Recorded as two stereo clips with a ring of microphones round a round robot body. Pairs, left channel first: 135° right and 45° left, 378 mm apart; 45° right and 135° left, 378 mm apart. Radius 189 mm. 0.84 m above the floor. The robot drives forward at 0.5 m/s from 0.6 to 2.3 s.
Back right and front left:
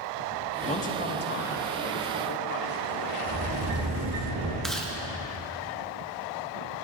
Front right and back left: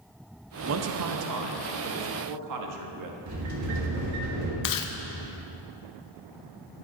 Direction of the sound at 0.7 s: 160° left.